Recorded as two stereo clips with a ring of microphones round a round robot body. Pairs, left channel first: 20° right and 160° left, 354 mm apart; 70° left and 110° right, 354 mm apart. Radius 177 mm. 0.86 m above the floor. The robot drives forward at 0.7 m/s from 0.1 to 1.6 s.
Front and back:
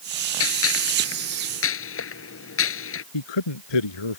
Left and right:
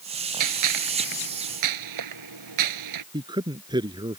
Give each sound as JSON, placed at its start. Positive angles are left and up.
{"t": 0.4, "sound": "a gunshot", "azimuth_deg": -75}
{"t": 3.1, "sound": "a man speaking", "azimuth_deg": -35}